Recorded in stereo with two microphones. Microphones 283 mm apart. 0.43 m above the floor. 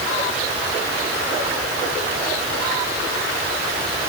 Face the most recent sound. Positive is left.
No sound to turn to.